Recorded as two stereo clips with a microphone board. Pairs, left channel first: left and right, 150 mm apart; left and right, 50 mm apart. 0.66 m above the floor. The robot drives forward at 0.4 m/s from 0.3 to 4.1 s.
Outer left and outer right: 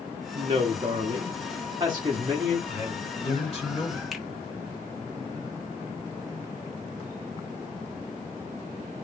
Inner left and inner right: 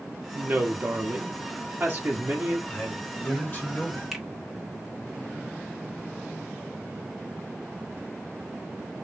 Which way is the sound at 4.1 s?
Centre (ahead or behind).